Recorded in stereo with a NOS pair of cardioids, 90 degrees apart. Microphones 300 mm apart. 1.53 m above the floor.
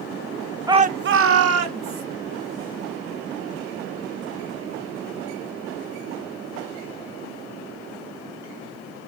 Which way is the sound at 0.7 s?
10° right.